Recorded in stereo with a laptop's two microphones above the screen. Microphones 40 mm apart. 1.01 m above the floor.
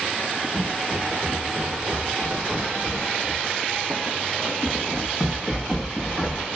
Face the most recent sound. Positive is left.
turn(degrees=0)  # may be behind; listen again after turning